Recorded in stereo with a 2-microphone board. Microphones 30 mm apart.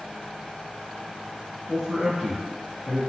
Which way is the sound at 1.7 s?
10° right (ahead or behind).